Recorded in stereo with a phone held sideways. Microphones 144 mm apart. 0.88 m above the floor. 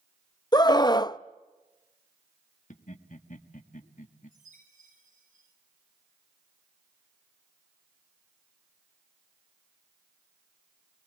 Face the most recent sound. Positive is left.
turn(degrees=-80)